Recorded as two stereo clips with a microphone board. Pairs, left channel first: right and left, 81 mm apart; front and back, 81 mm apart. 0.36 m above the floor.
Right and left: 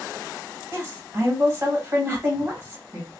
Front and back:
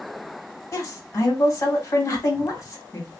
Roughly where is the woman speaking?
Ahead left.